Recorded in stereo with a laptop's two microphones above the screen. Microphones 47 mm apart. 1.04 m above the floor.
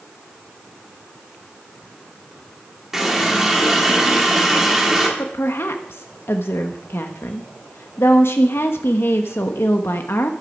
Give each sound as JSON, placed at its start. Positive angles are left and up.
{"t": 2.9, "sound": "a running tap", "side_deg": -10, "distance_m": 1.7}
{"t": 5.2, "sound": "a woman speaking", "side_deg": 65, "distance_m": 0.9}